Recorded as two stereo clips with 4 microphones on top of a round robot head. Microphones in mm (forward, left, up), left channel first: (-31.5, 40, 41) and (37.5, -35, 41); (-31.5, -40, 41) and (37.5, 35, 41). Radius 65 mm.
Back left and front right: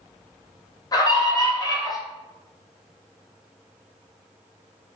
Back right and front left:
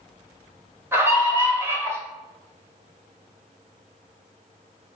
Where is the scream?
105° left, 0.9 m.